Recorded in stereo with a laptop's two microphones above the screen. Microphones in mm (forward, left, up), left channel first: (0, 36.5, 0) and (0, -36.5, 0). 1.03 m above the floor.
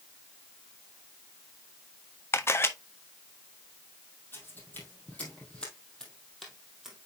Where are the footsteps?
30° left (ahead or behind), 2.5 m; by 7.1 s 10° right (ahead or behind), 2.0 m.